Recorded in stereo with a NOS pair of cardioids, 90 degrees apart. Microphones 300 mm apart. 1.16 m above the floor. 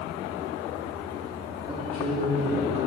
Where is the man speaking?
20° right, 3 m.